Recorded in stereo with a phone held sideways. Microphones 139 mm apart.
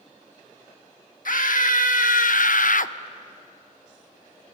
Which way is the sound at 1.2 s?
75° left (ahead or behind).